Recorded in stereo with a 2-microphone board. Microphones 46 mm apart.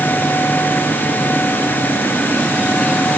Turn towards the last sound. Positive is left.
No sound to turn to.